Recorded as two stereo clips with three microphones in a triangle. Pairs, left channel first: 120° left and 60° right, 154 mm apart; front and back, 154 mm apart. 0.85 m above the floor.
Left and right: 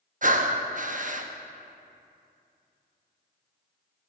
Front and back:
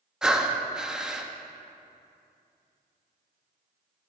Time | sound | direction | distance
0.2 | breathing | 95° right | 0.7 m